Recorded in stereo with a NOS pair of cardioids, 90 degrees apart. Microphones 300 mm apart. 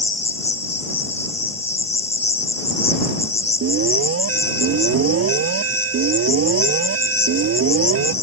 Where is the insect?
20° left.